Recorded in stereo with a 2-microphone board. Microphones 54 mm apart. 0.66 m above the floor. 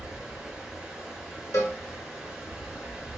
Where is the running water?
10° right (ahead or behind), 1.5 m.